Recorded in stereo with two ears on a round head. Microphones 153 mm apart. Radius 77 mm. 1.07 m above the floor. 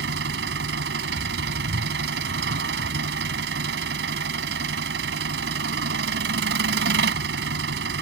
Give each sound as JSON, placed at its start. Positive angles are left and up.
{"t": 0.0, "sound": "an engine running", "side_deg": -85}